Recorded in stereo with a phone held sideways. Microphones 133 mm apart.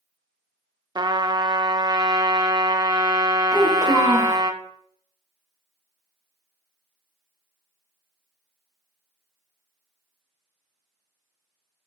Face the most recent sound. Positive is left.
turn(degrees=30)  # may be behind; listen again after turning